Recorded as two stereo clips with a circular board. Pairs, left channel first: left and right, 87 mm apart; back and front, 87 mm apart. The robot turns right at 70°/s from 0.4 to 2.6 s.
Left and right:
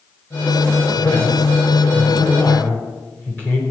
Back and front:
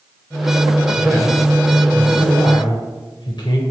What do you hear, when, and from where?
1.0 s a man speaking: 45° left, 3.5 m; by 3.6 s 160° left, 3.5 m